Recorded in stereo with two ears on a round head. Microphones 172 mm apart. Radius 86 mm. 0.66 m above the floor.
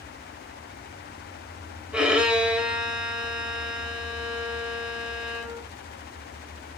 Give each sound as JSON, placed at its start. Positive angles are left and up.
{"t": 1.9, "sound": "a violin", "side_deg": -5, "distance_m": 1.6}